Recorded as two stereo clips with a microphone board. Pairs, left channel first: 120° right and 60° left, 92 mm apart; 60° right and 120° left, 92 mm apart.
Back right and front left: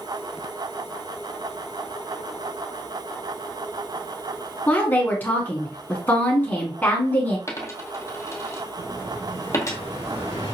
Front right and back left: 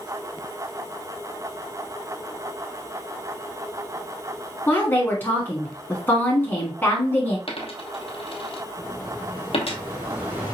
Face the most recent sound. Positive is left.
turn(degrees=50)